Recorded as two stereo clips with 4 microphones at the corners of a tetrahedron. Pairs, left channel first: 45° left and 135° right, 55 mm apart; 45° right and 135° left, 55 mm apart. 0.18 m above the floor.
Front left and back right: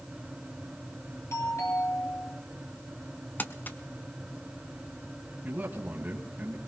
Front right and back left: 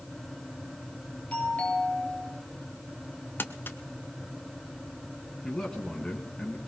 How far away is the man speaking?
About 1.8 m.